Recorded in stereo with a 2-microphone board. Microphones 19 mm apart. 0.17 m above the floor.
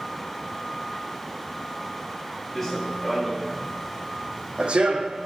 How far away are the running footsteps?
About 1.6 m.